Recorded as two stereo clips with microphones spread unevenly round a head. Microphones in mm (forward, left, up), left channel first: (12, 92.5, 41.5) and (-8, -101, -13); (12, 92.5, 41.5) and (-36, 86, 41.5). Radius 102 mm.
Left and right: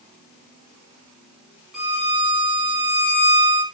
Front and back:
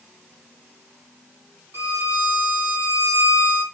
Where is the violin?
175° left, 3 m.